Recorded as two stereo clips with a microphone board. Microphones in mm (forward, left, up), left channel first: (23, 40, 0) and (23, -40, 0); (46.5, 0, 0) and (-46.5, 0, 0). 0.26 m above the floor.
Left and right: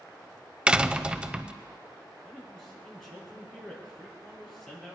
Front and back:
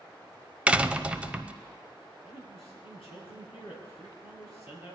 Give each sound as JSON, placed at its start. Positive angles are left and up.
{"t": 0.7, "sound": "a door slam", "azimuth_deg": -135, "distance_m": 0.6}
{"t": 2.2, "sound": "a man speaking", "azimuth_deg": 5, "distance_m": 6.0}